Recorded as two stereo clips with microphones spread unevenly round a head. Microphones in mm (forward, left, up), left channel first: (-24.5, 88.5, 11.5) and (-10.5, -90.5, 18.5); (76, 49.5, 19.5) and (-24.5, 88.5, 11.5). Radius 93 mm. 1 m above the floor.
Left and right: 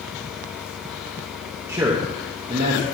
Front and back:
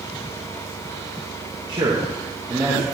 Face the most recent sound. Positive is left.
turn(degrees=-130)